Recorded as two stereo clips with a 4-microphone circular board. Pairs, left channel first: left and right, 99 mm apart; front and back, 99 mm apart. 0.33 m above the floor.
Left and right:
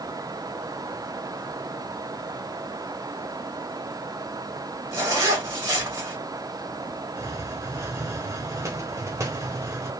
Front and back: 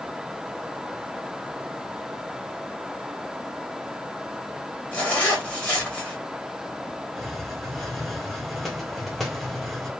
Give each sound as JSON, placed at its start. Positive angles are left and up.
{"t": 4.9, "sound": "a zipper", "azimuth_deg": -65, "distance_m": 1.6}
{"t": 7.2, "sound": "a hiss", "azimuth_deg": -85, "distance_m": 0.9}